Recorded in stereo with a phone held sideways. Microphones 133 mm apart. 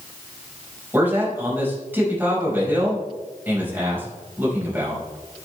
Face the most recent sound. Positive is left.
turn(degrees=-15)  # may be behind; listen again after turning